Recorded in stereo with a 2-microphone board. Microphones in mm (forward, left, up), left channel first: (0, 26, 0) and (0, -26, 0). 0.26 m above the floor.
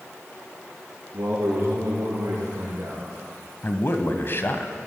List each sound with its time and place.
1.1 s a man speaking: 70° right (ahead or behind), 5.5 m; by 3.0 s 75° right (ahead or behind), 5 m
3.6 s a man speaking: 45° left (ahead or behind), 1.2 m